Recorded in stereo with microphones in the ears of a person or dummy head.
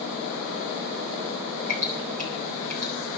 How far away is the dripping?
About 7 m.